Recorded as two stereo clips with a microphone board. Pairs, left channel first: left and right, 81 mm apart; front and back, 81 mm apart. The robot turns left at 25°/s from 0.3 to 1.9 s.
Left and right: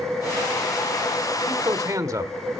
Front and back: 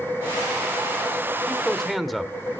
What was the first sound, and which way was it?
A man speaking, 80° right.